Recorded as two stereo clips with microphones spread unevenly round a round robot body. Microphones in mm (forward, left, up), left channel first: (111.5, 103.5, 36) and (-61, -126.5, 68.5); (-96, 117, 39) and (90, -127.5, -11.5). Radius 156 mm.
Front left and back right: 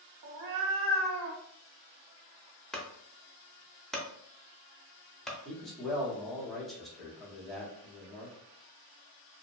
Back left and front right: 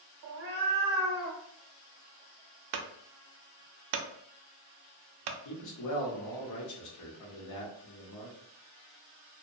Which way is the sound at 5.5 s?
135° left.